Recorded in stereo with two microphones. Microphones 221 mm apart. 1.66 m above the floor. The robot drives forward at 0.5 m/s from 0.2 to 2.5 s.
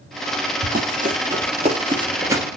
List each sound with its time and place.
0.6 s running footsteps: 45° right (ahead or behind), 2.5 m; by 2.5 s 10° right (ahead or behind), 1.8 m